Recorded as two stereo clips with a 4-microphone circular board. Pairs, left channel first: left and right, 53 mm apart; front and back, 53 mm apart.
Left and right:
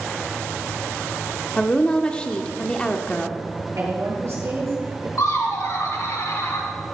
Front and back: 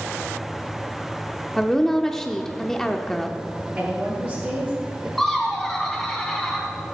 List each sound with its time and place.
1.6 s a woman speaking: 70° left, 0.8 m
3.8 s a woman speaking: 125° right, 6 m
5.2 s laughter: 85° left, 3.5 m